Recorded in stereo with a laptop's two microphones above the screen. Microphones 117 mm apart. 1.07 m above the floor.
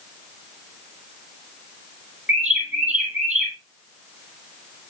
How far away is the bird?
About 3.5 m.